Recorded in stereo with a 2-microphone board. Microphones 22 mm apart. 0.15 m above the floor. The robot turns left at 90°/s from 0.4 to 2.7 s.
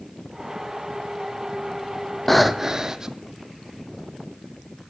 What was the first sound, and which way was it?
Breathing, 15° left.